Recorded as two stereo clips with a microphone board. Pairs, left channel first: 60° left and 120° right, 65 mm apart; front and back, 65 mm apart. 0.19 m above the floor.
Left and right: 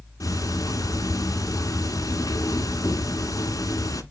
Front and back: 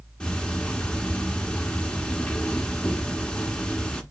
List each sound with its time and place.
0.2 s ticking: 75° left, 0.7 m